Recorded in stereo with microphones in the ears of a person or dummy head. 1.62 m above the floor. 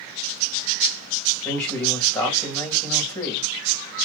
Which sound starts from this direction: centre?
A man speaking, at 1.4 s.